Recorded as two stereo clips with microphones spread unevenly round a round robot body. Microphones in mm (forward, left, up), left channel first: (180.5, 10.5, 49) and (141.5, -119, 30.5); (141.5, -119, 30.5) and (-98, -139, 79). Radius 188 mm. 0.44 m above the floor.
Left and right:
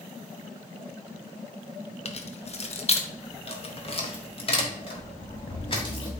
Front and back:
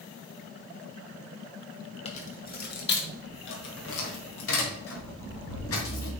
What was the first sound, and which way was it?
Keys jangling, 45° left.